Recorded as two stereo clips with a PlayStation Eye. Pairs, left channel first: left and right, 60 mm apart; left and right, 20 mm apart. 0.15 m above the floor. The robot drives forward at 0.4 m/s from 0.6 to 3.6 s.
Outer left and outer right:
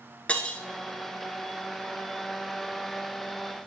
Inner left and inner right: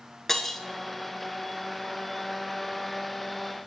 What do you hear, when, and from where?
0.3 s breaking glass: 20° left (ahead or behind), 0.8 m